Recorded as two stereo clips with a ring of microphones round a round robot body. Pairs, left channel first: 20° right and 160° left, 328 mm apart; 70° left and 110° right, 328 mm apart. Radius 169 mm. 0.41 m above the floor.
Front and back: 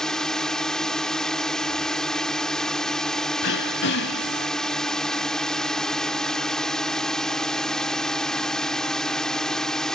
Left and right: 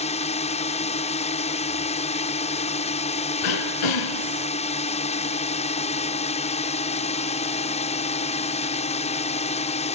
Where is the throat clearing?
35° left.